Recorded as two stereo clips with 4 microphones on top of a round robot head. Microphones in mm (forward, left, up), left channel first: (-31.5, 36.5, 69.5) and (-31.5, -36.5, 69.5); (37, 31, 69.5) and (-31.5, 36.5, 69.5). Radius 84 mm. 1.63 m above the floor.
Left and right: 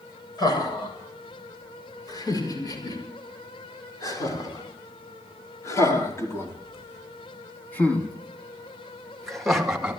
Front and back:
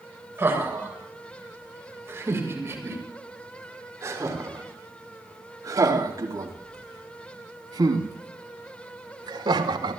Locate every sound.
0.4 s laughter: 120° left, 7.5 m; by 10.0 s 170° right, 2.5 m